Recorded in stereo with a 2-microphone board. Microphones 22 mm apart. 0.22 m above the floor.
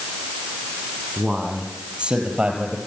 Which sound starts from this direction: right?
A man speaking, at 1.2 s.